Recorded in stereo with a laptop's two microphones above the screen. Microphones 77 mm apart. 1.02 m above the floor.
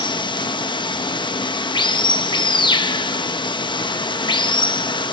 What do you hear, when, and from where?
0.0 s running water: 80° left, 0.8 m